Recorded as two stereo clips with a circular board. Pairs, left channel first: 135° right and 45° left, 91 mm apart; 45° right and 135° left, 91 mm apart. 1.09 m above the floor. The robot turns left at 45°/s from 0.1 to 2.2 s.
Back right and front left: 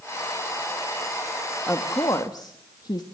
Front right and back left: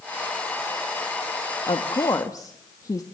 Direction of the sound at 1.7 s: 70° right.